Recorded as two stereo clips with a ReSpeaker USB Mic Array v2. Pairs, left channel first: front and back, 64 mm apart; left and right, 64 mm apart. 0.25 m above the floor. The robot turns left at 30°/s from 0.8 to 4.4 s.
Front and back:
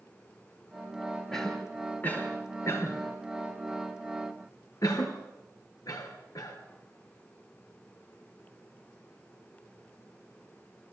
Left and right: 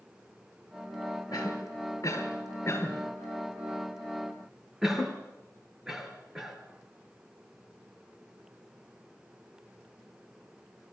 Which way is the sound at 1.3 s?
85° left.